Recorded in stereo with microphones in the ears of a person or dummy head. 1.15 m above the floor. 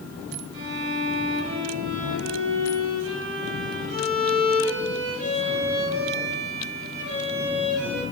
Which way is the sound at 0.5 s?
65° right (ahead or behind).